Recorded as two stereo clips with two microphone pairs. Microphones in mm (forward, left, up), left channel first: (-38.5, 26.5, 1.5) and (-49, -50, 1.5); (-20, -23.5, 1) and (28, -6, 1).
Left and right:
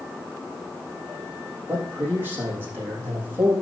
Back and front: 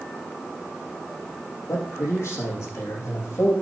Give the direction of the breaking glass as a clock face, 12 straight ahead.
No breaking glass in this recording.